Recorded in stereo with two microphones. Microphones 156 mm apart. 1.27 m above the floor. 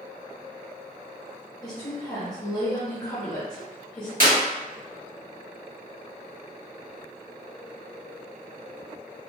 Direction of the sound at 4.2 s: 60° right (ahead or behind).